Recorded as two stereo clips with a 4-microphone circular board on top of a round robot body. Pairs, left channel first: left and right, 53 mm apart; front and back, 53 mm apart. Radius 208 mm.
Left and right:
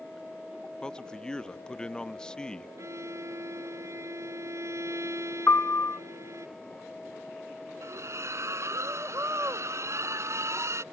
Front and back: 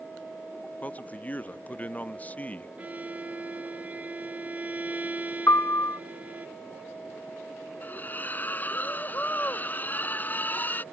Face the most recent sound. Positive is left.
turn(degrees=-60)